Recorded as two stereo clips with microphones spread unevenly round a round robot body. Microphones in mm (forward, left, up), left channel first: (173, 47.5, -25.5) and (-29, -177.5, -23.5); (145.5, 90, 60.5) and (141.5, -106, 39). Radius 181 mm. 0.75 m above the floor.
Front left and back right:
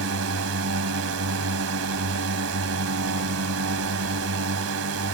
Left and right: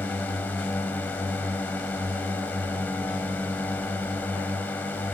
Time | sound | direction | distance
0.0 | a drone | 175° left | ?